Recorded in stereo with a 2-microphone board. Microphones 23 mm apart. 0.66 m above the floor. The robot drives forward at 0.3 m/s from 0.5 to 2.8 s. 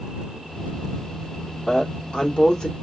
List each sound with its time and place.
1.7 s a woman speaking: 45° left (ahead or behind), 1.7 m; by 2.7 s 40° left (ahead or behind), 1.8 m